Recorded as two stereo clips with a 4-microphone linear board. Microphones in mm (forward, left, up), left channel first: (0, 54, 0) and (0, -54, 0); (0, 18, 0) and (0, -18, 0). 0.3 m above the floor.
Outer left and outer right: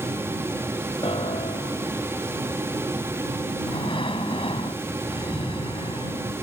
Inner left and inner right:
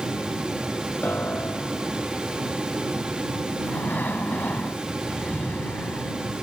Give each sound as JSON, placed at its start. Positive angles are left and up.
{"t": 1.0, "sound": "a piano", "side_deg": 60}
{"t": 3.6, "sound": "breathing", "side_deg": 60}